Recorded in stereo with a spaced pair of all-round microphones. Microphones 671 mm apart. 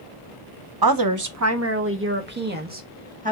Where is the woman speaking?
35° right (ahead or behind), 0.7 m; by 3.3 s 10° right (ahead or behind), 1.9 m.